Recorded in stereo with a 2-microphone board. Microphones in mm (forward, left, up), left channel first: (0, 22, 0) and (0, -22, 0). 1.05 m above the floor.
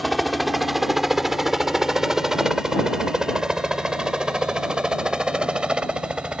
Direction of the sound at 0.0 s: Centre (ahead or behind).